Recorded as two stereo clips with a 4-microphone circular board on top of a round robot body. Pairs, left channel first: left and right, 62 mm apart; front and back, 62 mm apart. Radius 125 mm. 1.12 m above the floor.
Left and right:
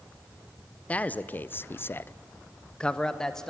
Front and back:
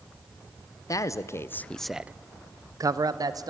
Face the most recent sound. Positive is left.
turn(degrees=170)